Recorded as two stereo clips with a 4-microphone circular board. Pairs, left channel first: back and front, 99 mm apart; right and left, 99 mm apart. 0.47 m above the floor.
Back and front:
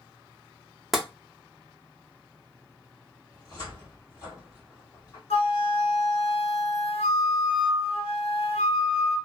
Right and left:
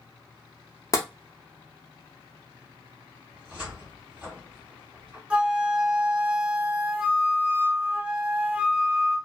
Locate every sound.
0.9 s tapping: 85° right, 0.6 m
3.3 s a cupboard door: 160° left, 1.6 m
5.3 s a flute: 170° left, 0.7 m